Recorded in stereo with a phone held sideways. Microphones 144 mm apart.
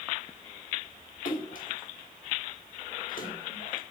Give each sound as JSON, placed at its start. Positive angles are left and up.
{"t": 1.2, "sound": "a splash", "side_deg": 70, "distance_m": 1.9}